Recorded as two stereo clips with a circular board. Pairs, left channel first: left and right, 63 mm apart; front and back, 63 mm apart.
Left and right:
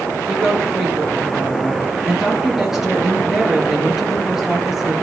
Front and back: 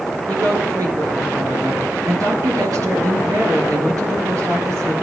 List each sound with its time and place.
0.3 s a woman speaking: 175° right, 4.5 m